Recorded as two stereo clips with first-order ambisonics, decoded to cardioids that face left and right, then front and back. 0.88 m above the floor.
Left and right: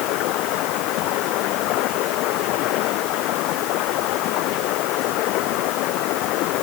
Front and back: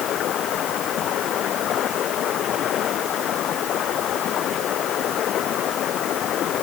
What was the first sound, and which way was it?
Running water, 55° left.